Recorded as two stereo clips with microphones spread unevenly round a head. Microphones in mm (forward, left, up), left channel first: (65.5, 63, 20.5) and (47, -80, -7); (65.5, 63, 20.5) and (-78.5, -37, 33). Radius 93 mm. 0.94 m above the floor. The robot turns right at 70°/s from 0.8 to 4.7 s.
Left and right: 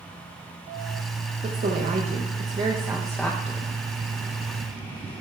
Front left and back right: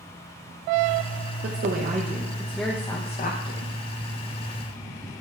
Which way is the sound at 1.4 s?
130° right.